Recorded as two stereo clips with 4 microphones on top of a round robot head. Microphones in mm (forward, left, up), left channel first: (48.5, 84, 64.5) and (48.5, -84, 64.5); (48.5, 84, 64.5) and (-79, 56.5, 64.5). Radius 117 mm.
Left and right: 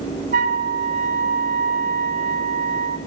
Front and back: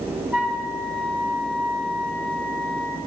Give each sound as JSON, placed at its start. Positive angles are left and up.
{"t": 0.3, "sound": "a flute", "azimuth_deg": -90, "distance_m": 0.7}